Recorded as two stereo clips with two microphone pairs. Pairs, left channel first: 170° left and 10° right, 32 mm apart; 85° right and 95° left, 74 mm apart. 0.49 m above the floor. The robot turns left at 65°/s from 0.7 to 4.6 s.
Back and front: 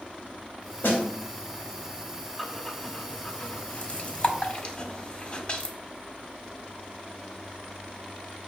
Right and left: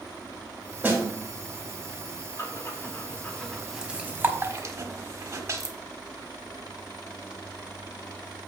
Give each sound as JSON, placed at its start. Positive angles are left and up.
{"t": 0.8, "sound": "a snare drum", "azimuth_deg": 165, "distance_m": 2.5}
{"t": 2.4, "sound": "breathing", "azimuth_deg": -100, "distance_m": 1.2}